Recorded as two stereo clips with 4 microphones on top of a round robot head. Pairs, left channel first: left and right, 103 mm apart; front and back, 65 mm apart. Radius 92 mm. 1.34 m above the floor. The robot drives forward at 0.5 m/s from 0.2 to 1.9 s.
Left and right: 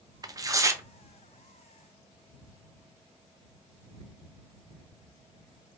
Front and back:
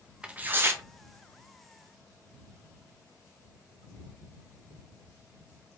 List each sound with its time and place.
0.2 s tearing paper: 120° right, 0.6 m; by 0.8 s 145° right, 0.7 m